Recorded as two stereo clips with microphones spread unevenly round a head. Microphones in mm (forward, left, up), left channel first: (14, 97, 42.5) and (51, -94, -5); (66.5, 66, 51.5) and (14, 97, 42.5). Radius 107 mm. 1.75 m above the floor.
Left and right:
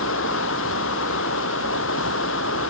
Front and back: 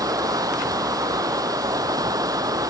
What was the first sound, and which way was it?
Running water, 135° left.